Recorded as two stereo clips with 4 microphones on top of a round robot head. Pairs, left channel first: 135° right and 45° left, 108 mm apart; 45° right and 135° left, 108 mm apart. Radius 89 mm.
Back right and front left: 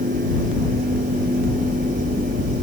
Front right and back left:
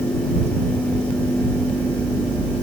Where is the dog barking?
No dog barking in this recording.